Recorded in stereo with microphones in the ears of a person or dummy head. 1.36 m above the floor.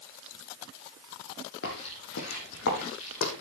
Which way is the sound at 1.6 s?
60° left (ahead or behind).